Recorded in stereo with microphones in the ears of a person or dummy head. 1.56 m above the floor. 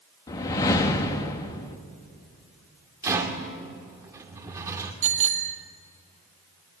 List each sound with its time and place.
0.3 s a whoosh: 15° left (ahead or behind), 1.0 m
3.0 s a rattle: 15° right (ahead or behind), 2 m
5.0 s a bicycle bell: 35° right (ahead or behind), 2 m